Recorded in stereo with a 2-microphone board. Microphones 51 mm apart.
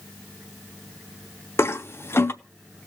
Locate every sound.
1.6 s a toilet flushing: 55° left (ahead or behind), 0.7 m